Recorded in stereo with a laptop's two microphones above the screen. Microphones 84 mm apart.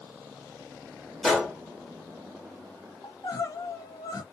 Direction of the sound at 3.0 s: 50° left (ahead or behind).